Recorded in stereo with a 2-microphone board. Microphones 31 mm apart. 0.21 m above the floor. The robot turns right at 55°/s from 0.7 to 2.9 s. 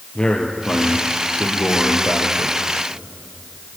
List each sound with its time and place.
0.1 s a man speaking: 35° left, 4 m; by 2.6 s 140° left, 4 m